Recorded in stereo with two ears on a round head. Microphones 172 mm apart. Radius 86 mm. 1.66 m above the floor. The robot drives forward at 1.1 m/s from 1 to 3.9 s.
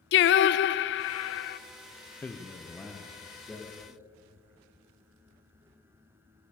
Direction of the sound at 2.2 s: 10° left (ahead or behind).